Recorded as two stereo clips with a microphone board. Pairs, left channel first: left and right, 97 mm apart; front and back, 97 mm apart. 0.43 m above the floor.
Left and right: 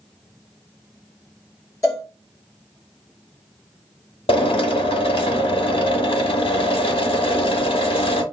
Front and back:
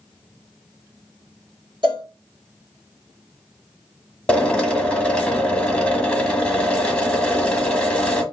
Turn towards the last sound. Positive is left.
turn(degrees=80)